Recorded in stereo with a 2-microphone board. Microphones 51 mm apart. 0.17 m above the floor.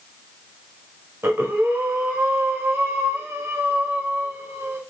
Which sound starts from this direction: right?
Breathing, at 1.2 s.